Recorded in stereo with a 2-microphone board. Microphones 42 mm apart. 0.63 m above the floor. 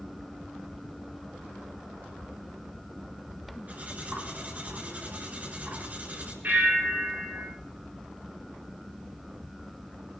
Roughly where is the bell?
Right.